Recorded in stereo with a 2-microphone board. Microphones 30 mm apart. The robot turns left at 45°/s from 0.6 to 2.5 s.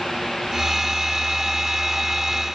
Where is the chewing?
No chewing in this recording.